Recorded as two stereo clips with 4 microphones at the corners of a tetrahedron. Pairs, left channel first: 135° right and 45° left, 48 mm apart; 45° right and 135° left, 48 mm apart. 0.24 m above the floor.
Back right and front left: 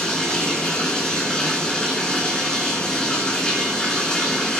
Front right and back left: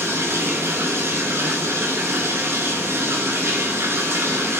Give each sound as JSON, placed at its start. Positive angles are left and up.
{"t": 0.0, "sound": "running water", "azimuth_deg": 150, "distance_m": 2.5}